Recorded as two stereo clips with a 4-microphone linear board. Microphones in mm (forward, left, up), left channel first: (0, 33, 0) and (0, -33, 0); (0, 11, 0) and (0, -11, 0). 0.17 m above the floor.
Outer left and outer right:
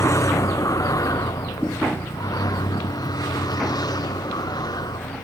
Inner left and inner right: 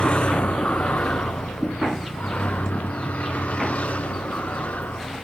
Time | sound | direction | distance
0.0 | a vehicle | 50° left (ahead or behind) | ?